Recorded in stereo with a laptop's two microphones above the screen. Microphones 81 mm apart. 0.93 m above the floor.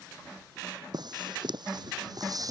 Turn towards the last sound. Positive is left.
turn(degrees=-45)  # may be behind; listen again after turning